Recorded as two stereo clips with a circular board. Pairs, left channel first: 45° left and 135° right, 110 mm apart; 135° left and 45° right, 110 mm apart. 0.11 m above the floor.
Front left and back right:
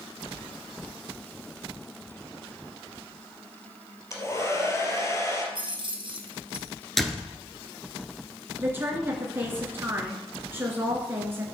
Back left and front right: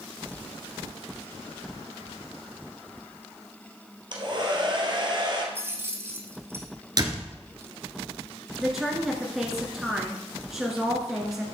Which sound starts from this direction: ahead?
A hair dryer, at 4.1 s.